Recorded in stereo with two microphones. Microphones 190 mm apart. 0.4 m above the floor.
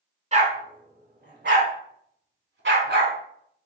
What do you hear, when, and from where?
0.3 s a dog barking: 40° right (ahead or behind), 1.4 m; by 3.1 s 65° right (ahead or behind), 1.3 m